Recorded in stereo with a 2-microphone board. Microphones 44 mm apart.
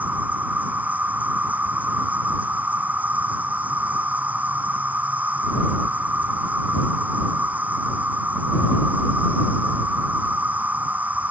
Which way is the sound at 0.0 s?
40° right (ahead or behind).